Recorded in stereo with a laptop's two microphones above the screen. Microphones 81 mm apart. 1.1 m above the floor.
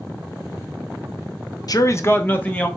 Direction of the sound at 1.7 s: 50° left (ahead or behind).